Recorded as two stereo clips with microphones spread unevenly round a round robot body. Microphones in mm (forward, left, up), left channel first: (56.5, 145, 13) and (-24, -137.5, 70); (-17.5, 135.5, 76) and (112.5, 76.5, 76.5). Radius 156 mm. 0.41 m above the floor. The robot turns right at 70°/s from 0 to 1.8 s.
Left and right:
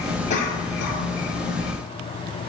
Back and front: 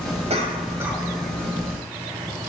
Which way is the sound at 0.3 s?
10° left.